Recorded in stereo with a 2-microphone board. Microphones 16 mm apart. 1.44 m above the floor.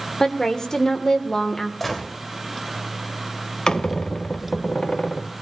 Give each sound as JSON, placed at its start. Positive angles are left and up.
{"t": 0.2, "sound": "a woman speaking", "side_deg": 35, "distance_m": 1.6}
{"t": 1.8, "sound": "a gunshot", "side_deg": 10, "distance_m": 3.0}
{"t": 3.7, "sound": "a squeak", "side_deg": 50, "distance_m": 0.6}